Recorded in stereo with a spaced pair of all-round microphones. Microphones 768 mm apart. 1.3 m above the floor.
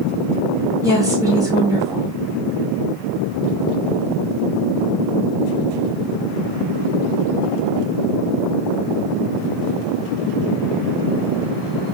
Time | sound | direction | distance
0.8 | a woman speaking | 5° right (ahead or behind) | 1.7 m